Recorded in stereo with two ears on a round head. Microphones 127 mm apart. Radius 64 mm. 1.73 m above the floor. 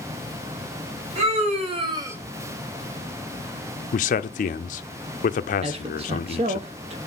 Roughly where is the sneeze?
I don't hear a sneeze.